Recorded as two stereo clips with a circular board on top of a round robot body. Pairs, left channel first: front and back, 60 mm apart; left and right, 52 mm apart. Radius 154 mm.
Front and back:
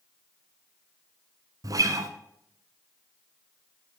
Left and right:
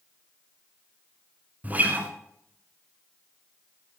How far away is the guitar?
About 1.3 m.